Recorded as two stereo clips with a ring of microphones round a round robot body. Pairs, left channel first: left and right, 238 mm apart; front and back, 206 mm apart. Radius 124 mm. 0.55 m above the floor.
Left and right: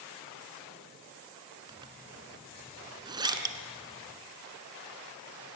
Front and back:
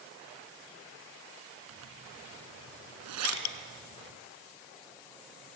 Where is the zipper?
165° right, 1.8 m.